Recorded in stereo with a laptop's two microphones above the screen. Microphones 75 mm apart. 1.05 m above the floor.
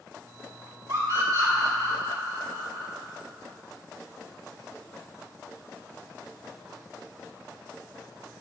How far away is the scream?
About 3.5 m.